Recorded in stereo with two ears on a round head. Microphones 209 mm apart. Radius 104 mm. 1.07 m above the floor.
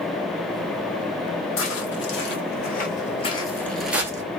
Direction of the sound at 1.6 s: 60° left (ahead or behind).